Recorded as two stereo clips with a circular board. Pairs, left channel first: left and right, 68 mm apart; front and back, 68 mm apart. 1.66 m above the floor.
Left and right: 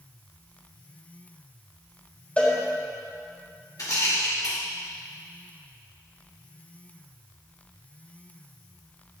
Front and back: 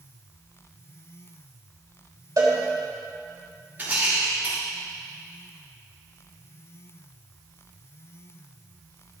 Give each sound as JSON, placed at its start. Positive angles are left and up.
{"t": 2.4, "sound": "a cowbell", "azimuth_deg": 155, "distance_m": 3.5}
{"t": 3.8, "sound": "a rattle", "azimuth_deg": 120, "distance_m": 3.5}